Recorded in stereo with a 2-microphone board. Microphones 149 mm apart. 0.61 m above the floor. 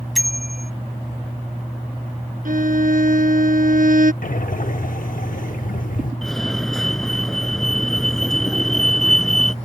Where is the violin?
65° right (ahead or behind).